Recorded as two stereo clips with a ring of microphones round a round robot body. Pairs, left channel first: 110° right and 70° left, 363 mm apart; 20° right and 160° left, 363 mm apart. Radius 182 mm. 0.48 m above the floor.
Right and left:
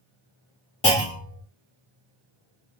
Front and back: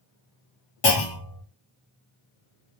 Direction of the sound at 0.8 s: 40° right.